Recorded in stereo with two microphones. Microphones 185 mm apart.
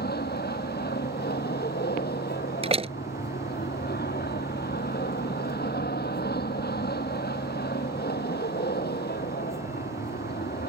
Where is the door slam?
35° right (ahead or behind).